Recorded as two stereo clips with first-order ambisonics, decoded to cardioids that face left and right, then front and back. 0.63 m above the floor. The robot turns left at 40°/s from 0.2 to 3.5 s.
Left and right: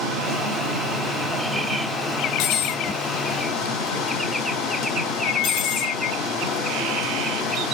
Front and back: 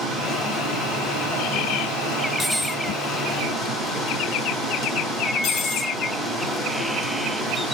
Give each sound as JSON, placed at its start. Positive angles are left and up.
{"t": 0.0, "sound": "running water", "azimuth_deg": -120, "distance_m": 1.7}
{"t": 2.4, "sound": "cutlery clinking", "azimuth_deg": 90, "distance_m": 0.6}